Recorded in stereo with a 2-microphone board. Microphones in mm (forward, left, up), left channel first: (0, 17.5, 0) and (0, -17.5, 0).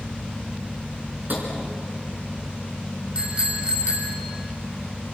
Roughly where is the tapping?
Right.